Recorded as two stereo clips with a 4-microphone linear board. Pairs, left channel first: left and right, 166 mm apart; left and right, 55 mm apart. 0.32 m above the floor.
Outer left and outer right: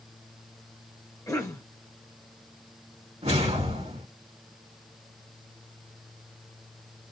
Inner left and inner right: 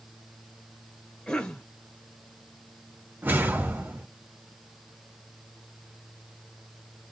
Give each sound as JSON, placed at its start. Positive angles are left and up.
{"t": 1.3, "sound": "a cough", "side_deg": 20, "distance_m": 1.1}
{"t": 3.2, "sound": "a whoosh", "side_deg": -40, "distance_m": 1.8}